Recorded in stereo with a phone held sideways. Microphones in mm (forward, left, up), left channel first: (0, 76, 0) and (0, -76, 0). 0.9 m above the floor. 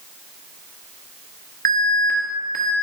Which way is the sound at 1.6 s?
75° right (ahead or behind).